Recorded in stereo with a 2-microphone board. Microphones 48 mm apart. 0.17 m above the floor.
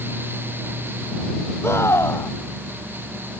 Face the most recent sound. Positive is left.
turn(degrees=75)  # may be behind; listen again after turning